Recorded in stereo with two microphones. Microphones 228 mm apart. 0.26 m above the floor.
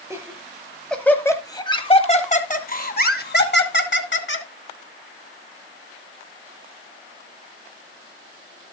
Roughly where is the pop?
No pop in this recording.